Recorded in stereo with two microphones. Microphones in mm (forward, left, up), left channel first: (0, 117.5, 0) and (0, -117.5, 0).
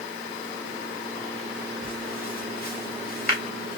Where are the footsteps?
40° left (ahead or behind), 1.9 m.